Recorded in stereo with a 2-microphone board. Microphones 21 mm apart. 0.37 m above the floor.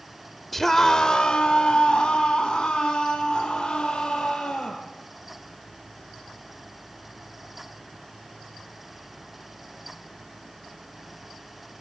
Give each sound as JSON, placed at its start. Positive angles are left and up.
{"t": 0.5, "sound": "a scream", "side_deg": 5, "distance_m": 1.0}